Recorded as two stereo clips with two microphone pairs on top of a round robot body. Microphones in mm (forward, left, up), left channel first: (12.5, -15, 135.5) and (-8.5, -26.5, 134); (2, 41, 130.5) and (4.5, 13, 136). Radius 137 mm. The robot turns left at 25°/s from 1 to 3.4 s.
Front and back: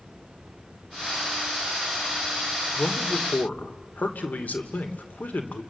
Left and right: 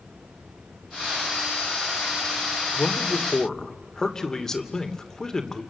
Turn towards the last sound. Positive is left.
turn(degrees=25)